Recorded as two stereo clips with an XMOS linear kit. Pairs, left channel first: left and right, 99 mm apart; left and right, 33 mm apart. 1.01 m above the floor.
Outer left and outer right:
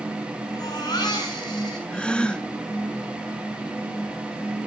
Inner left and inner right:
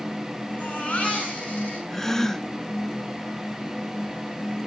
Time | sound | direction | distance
0.5 | a baby crying | 45° left (ahead or behind) | 7 m
1.9 | a gasp | 10° left (ahead or behind) | 0.7 m